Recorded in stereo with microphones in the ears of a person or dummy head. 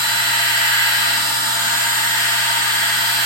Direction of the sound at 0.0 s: 20° right (ahead or behind).